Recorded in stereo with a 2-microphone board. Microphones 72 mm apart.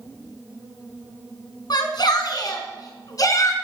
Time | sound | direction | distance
1.7 | a shout | 75° left (ahead or behind) | 4.5 m